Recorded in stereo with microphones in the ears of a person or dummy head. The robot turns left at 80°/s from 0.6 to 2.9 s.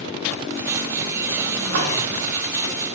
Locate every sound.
1.6 s a splash: 55° right (ahead or behind), 1.1 m; by 1.9 s 70° right (ahead or behind), 1.1 m